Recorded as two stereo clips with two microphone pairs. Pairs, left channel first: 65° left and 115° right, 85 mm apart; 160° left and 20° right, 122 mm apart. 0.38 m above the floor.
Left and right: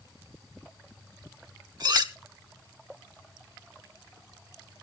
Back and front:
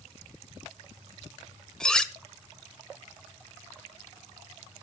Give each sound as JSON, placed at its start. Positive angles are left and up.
{"t": 1.8, "sound": "cutlery clinking", "azimuth_deg": -120, "distance_m": 1.0}